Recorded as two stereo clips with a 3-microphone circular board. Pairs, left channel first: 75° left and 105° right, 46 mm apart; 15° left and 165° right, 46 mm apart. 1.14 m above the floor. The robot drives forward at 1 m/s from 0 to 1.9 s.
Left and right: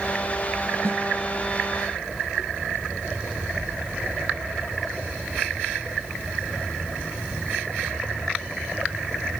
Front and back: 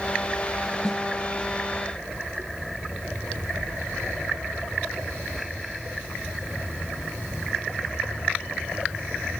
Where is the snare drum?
85° right, 1.3 m; by 1.0 s 95° right, 1.3 m.